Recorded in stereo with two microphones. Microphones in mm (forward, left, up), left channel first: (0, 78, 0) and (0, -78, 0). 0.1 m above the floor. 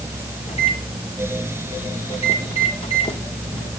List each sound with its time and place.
0.5 s a microwave: 40° left (ahead or behind), 2.5 m